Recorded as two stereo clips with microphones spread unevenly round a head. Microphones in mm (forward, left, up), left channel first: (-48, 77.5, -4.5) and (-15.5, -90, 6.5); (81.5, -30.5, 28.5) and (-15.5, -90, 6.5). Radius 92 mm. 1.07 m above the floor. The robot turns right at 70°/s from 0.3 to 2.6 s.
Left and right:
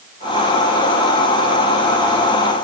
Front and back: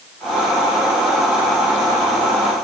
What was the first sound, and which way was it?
Only background noise.